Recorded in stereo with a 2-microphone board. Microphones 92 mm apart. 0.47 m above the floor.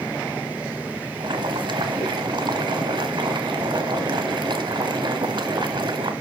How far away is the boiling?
About 1.7 m.